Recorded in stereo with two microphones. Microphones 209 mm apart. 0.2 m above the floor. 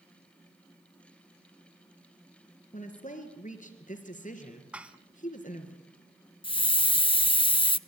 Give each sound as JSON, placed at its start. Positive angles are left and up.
{"t": 2.7, "sound": "a woman speaking", "side_deg": 35, "distance_m": 4.5}
{"t": 4.7, "sound": "dishes clattering", "side_deg": -5, "distance_m": 1.3}
{"t": 6.4, "sound": "a hiss", "side_deg": 25, "distance_m": 0.5}